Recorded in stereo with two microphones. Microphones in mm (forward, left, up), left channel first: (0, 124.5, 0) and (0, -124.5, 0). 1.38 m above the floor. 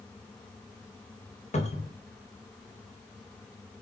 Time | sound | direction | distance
1.5 | a cupboard door | 30° left (ahead or behind) | 0.6 m